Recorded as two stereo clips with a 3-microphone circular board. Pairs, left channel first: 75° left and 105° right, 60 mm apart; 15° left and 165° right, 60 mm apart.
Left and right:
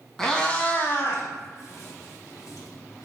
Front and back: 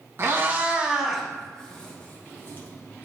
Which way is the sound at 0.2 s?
155° left.